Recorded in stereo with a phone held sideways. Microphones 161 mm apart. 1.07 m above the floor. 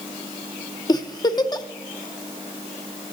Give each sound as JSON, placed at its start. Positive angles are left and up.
{"t": 0.9, "sound": "a giggle", "side_deg": 25, "distance_m": 0.6}